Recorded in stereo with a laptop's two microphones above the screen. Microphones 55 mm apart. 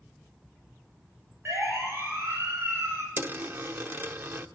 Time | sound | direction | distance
1.4 | a siren | 45° right (ahead or behind) | 7.5 m
3.2 | a dropped coin | 40° right (ahead or behind) | 0.7 m